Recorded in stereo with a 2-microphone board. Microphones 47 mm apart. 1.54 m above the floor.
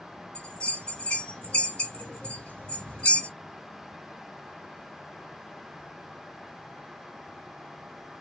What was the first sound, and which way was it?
A bell, 25° left (ahead or behind).